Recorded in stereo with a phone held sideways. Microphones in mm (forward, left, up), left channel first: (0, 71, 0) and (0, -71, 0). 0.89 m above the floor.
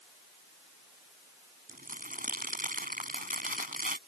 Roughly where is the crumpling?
Right.